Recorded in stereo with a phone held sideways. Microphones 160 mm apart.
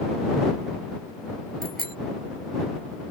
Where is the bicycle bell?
70° right (ahead or behind).